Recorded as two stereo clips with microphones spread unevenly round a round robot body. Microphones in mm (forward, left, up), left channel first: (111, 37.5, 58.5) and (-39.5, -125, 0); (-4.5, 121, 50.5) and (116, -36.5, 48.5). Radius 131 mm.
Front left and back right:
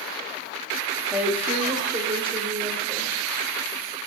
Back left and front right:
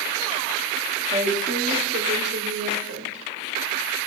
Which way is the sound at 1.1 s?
75° right.